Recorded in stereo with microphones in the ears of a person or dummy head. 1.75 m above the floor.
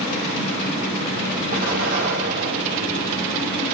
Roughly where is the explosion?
Right.